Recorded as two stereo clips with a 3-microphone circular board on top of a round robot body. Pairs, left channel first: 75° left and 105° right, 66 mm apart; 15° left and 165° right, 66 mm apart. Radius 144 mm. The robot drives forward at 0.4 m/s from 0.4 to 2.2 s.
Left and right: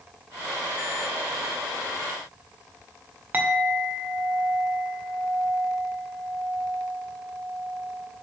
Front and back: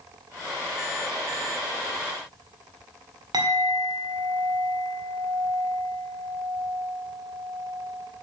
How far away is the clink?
About 2 m.